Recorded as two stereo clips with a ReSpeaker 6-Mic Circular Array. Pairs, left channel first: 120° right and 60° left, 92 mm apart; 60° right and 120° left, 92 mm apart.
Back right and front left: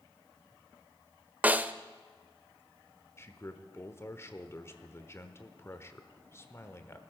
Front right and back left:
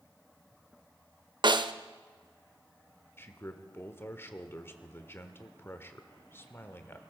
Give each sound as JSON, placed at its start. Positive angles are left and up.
{"t": 1.4, "sound": "a snare drum", "azimuth_deg": 130, "distance_m": 0.6}
{"t": 3.2, "sound": "a man speaking", "azimuth_deg": -95, "distance_m": 1.1}